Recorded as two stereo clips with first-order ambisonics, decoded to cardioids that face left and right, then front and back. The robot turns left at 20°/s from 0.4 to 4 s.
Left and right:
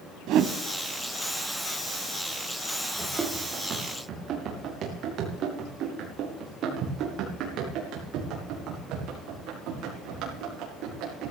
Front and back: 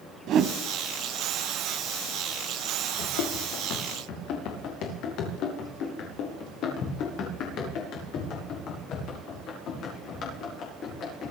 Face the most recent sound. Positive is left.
turn(degrees=-55)